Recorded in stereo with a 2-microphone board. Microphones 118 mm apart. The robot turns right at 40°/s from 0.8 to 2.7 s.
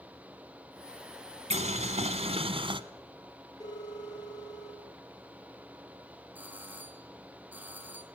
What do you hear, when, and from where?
1.5 s boiling: 100° right, 1.2 m; by 2.8 s 50° right, 1.2 m
3.6 s a phone ringing: 35° left (ahead or behind), 7 m
6.3 s a doorbell: 15° right (ahead or behind), 3.5 m